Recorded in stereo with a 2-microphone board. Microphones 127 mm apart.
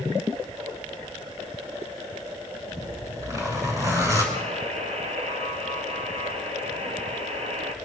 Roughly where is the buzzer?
Right.